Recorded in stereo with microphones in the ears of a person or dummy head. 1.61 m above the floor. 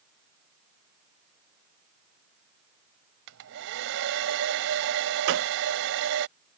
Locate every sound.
3.3 s a hair dryer: 65° right (ahead or behind)
5.3 s a gunshot: 65° right (ahead or behind)